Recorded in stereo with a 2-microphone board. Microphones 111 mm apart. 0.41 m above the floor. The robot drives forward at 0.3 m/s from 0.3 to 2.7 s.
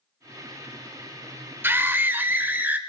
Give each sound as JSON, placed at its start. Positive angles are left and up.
{"t": 1.6, "sound": "a scream", "side_deg": -20, "distance_m": 1.0}